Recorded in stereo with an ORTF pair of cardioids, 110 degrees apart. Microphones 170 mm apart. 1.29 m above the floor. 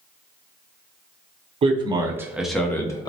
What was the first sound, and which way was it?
A man speaking, 35° right.